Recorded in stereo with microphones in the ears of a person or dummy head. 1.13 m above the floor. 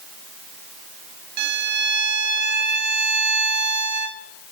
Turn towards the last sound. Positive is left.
turn(degrees=-60)  # may be behind; listen again after turning